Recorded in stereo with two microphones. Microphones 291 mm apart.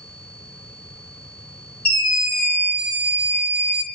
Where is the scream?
75° left (ahead or behind), 7 m.